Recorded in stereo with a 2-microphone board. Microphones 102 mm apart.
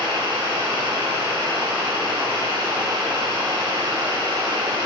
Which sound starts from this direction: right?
Running water, at 0.0 s.